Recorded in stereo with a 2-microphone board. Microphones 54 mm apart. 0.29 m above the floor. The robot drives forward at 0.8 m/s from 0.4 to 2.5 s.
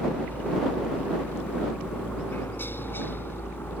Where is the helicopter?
35° left (ahead or behind); by 3.8 s 40° left (ahead or behind).